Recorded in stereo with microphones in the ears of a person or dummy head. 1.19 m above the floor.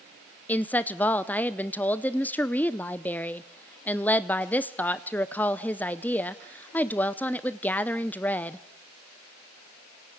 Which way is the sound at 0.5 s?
5° left (ahead or behind).